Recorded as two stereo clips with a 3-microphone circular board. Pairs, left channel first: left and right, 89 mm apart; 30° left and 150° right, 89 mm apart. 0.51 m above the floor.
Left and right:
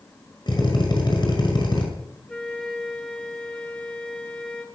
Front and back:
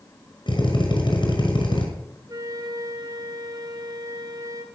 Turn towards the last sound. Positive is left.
turn(degrees=170)